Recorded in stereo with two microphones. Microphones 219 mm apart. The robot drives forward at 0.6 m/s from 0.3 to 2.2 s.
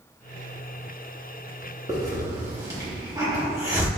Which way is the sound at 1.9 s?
15° right (ahead or behind).